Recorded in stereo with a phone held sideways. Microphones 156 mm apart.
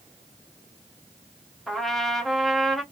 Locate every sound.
1.7 s a trumpet: centre (ahead or behind), 0.8 m